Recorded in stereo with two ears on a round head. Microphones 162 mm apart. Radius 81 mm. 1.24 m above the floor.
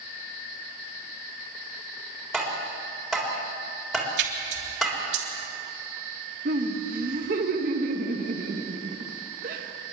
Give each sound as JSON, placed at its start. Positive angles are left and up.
{"t": 2.3, "sound": "tapping", "side_deg": 0, "distance_m": 3.5}
{"t": 4.2, "sound": "a splash", "side_deg": -75, "distance_m": 3.5}
{"t": 6.5, "sound": "laughter", "side_deg": -55, "distance_m": 1.7}